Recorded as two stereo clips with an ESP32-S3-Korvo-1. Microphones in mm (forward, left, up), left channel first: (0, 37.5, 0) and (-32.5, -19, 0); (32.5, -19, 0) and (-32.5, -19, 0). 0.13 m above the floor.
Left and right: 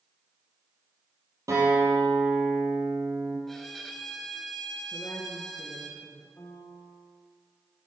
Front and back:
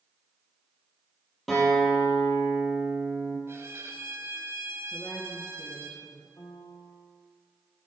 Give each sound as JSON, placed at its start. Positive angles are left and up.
{"t": 1.5, "sound": "a guitar", "azimuth_deg": -90, "distance_m": 4.0}
{"t": 3.5, "sound": "a violin", "azimuth_deg": 145, "distance_m": 1.0}
{"t": 4.9, "sound": "a woman speaking", "azimuth_deg": 55, "distance_m": 1.8}
{"t": 6.4, "sound": "a piano", "azimuth_deg": 20, "distance_m": 1.8}